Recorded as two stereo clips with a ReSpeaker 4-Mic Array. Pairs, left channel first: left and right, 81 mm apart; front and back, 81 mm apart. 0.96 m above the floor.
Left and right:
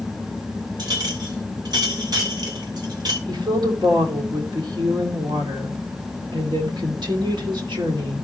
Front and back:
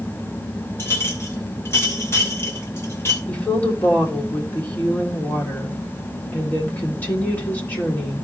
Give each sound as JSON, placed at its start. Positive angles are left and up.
{"t": 0.8, "sound": "a clink", "azimuth_deg": -60, "distance_m": 2.5}
{"t": 3.3, "sound": "a woman speaking", "azimuth_deg": -70, "distance_m": 2.5}